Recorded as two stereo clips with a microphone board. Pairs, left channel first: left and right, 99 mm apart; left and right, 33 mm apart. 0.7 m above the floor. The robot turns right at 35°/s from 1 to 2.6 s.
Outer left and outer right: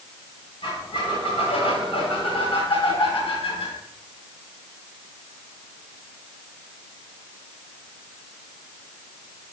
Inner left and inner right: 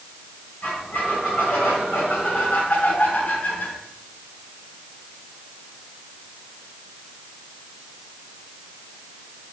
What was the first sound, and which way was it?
A squeak, 60° left.